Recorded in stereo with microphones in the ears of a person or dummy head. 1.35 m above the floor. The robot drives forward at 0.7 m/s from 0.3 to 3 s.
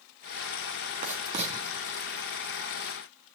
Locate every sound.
1.0 s writing: 40° right (ahead or behind), 2 m; by 1.5 s 35° right (ahead or behind), 2.5 m